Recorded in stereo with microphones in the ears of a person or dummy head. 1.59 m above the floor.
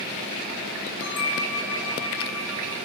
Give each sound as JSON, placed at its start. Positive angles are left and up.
{"t": 1.0, "sound": "a bell", "side_deg": 75, "distance_m": 3.0}